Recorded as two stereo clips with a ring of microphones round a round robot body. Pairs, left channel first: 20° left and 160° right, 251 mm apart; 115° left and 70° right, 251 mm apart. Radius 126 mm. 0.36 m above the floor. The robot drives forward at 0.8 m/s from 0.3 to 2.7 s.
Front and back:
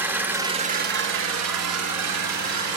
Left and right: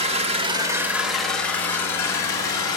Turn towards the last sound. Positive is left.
turn(degrees=-170)